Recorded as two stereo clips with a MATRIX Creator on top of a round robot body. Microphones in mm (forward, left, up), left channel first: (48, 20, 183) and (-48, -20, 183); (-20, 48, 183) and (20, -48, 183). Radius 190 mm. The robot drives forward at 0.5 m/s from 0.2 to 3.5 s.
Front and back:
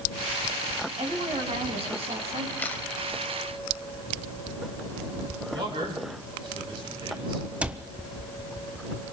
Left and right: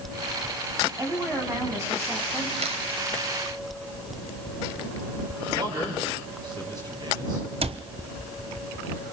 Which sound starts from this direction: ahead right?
A camera shutter, at 2.6 s.